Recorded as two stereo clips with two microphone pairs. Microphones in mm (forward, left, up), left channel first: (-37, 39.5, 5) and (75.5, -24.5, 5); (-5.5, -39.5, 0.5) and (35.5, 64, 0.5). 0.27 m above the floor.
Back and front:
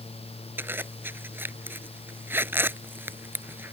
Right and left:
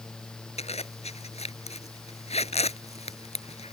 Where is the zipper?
105° right.